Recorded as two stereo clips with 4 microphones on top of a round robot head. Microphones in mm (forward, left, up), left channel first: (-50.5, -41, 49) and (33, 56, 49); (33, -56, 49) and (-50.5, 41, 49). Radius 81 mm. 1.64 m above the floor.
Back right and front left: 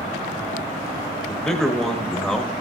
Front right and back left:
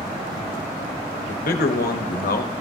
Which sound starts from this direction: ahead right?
A man speaking, at 1.3 s.